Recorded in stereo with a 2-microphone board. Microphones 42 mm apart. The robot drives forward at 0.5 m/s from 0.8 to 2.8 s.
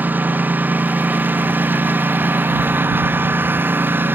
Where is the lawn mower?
50° right (ahead or behind); by 4.2 s 55° right (ahead or behind).